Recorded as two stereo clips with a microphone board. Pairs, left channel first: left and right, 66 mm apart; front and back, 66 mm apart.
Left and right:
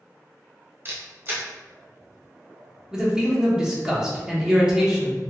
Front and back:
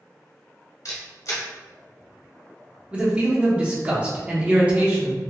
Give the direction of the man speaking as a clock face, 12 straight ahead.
5 o'clock.